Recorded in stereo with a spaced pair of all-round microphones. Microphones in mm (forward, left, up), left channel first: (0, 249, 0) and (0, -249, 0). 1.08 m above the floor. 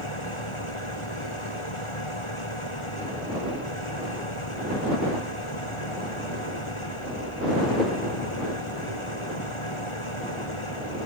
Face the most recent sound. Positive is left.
turn(degrees=70)  # may be behind; listen again after turning